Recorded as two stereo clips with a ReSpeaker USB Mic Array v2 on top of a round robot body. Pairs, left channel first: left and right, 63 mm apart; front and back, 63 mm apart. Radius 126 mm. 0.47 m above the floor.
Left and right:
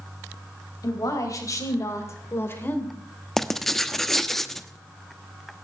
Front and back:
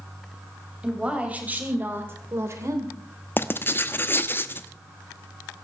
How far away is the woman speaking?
About 3.5 m.